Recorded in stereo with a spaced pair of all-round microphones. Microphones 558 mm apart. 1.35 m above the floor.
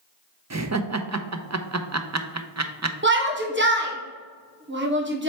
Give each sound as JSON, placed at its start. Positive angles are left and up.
{"t": 0.5, "sound": "laughter", "side_deg": -30, "distance_m": 0.6}
{"t": 3.0, "sound": "a shout", "side_deg": -20, "distance_m": 1.0}